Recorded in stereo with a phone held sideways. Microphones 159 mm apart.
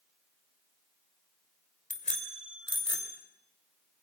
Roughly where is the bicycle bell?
Left.